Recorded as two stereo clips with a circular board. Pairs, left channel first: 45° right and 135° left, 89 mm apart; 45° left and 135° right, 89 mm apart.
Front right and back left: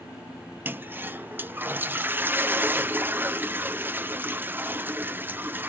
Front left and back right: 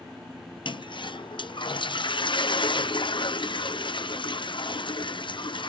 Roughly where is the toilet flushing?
Left.